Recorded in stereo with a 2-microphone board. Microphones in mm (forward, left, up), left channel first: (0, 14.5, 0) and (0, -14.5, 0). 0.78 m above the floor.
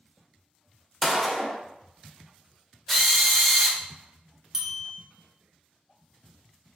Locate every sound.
1.0 s a gunshot: 5° right (ahead or behind), 0.5 m
2.9 s a drill: 5° left (ahead or behind), 0.5 m
4.5 s a bell: 15° right (ahead or behind), 0.7 m